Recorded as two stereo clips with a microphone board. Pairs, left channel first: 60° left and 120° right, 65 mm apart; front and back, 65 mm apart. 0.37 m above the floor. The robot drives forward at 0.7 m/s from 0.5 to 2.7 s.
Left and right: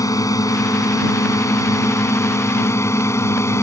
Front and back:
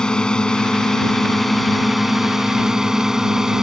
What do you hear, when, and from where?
0.0 s a drone: 75° left; by 3.6 s 95° left